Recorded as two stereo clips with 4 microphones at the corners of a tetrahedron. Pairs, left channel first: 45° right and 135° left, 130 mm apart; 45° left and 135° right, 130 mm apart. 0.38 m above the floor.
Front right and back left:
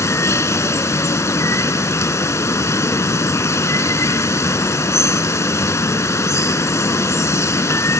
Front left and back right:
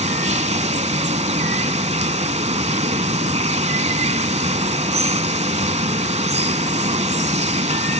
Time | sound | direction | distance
0.0 | running water | 110° right | 0.7 m